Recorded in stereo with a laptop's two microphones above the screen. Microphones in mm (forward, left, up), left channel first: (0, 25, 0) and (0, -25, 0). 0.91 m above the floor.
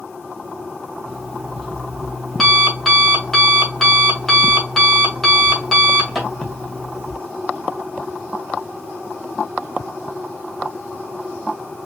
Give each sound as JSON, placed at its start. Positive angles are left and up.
{"t": 1.1, "sound": "an alarm clock", "side_deg": 5, "distance_m": 2.0}